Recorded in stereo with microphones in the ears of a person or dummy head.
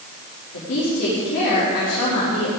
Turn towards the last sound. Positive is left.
turn(degrees=65)  # may be behind; listen again after turning